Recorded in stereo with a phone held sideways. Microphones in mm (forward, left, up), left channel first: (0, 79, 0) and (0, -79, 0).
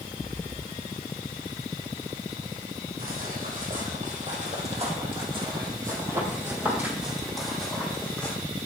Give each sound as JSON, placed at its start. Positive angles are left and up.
{"t": 3.0, "sound": "footsteps", "side_deg": -65, "distance_m": 3.0}